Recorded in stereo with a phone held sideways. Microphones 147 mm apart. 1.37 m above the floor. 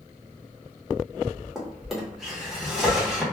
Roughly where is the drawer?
Centre.